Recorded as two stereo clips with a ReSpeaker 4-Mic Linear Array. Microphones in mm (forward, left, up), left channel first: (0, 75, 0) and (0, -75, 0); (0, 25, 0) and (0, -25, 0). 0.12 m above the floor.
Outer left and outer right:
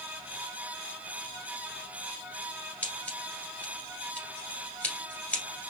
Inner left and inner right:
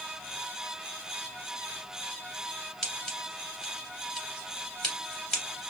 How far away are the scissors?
About 2.5 m.